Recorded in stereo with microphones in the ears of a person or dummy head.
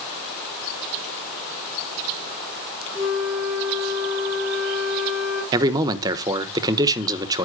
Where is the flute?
Centre (ahead or behind), 5 m.